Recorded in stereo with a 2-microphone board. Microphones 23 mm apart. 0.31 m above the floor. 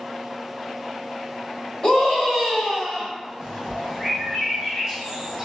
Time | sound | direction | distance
1.8 | a scream | 35° left (ahead or behind) | 1.2 m
3.4 | a bird | 15° right (ahead or behind) | 1.2 m